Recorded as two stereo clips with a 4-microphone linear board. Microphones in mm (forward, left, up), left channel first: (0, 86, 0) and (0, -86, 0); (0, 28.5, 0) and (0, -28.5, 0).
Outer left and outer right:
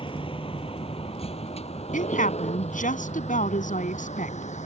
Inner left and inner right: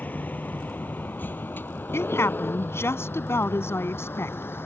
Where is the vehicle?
30° left (ahead or behind); by 4.7 s 45° left (ahead or behind).